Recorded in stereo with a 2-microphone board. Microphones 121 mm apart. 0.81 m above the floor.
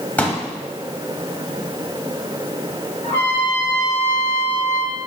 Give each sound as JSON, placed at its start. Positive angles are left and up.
{"t": 0.2, "sound": "a pop", "side_deg": 10, "distance_m": 1.2}
{"t": 3.0, "sound": "a trumpet", "side_deg": 70, "distance_m": 2.0}